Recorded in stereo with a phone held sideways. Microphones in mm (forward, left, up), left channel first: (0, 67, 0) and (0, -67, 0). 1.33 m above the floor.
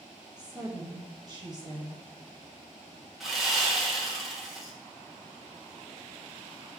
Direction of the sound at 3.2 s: Centre (ahead or behind).